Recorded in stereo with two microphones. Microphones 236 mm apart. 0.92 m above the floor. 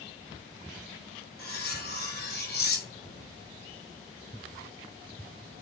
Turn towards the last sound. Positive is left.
turn(degrees=45)  # may be behind; listen again after turning